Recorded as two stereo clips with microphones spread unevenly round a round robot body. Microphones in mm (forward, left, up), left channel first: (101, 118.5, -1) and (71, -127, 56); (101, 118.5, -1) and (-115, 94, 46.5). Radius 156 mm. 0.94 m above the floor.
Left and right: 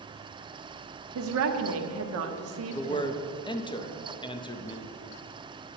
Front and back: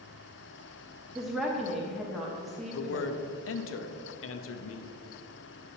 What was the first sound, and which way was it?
A woman speaking, 75° right.